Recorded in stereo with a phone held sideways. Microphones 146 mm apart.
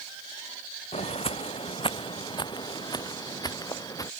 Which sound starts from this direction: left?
Footsteps, at 0.9 s.